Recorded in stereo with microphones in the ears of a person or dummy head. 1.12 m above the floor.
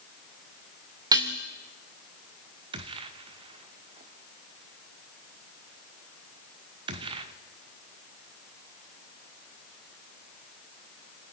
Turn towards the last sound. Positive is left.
turn(degrees=-30)  # may be behind; listen again after turning